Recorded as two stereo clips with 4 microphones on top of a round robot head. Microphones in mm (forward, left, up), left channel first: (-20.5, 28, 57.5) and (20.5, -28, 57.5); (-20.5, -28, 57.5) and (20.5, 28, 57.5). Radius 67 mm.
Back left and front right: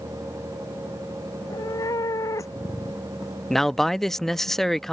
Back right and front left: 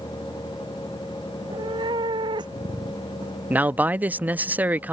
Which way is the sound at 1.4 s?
85° left.